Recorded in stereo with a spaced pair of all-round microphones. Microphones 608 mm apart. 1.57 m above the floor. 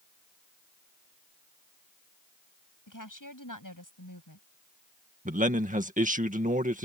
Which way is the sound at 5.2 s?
10° right (ahead or behind).